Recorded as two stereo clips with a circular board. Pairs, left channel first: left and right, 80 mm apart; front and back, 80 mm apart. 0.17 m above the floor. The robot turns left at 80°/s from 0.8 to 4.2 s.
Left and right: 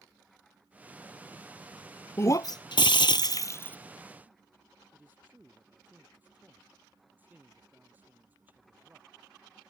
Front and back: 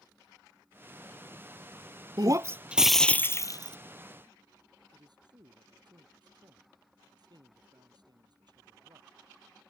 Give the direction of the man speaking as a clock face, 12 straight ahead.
5 o'clock.